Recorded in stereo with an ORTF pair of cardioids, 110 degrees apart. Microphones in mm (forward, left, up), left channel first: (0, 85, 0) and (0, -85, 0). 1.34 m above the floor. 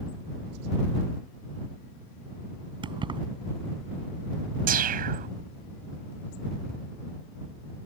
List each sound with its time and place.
2.8 s keys jangling: 25° right
4.7 s a whoosh: 55° right